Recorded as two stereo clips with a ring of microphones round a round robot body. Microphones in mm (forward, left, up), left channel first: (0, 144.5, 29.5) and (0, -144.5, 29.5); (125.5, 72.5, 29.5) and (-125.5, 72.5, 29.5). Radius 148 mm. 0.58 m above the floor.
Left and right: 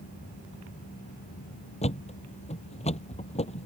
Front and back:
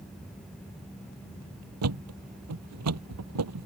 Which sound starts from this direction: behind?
A thud, at 1.8 s.